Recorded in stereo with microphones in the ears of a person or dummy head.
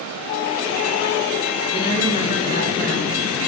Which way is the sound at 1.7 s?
55° left (ahead or behind).